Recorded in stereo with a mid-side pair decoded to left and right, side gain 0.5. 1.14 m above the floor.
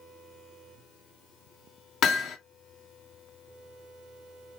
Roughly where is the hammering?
Ahead left.